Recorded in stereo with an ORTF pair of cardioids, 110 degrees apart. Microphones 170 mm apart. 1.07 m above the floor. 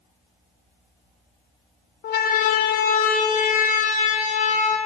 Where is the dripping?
I don't hear dripping.